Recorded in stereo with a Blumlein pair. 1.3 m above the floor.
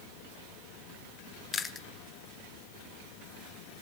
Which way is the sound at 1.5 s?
15° left.